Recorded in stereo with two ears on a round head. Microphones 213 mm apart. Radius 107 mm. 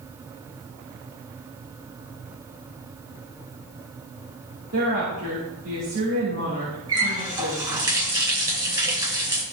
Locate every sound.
4.7 s a woman speaking: 60° right (ahead or behind), 3 m
6.9 s a running tap: 20° right (ahead or behind), 2.5 m